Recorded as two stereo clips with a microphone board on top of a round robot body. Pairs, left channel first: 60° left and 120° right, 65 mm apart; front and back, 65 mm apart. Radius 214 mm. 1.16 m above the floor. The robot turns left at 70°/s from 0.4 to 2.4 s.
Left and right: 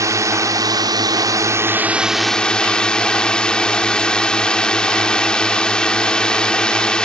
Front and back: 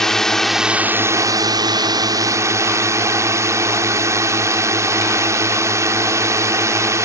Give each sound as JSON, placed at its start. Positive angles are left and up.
{"t": 0.0, "sound": "a drone", "azimuth_deg": -85}